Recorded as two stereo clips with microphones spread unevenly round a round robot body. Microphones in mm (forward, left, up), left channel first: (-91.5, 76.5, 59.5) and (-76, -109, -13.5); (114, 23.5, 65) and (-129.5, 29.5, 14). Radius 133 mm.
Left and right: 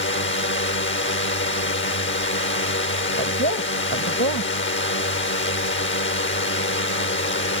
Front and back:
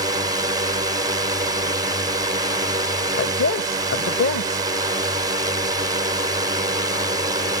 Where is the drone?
115° left.